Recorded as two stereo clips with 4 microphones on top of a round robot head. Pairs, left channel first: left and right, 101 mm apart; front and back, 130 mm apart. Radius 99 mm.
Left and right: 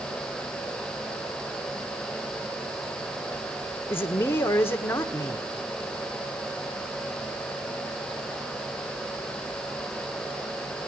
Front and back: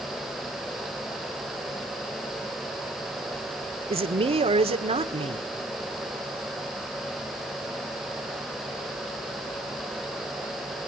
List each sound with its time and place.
3.9 s a man speaking: 155° left, 1.8 m